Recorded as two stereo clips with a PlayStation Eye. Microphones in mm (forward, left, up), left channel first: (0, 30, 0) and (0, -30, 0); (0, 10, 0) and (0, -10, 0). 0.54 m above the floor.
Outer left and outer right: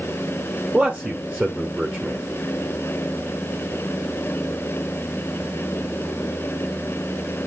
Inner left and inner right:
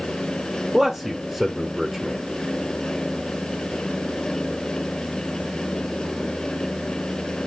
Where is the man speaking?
20° right (ahead or behind), 1.3 m.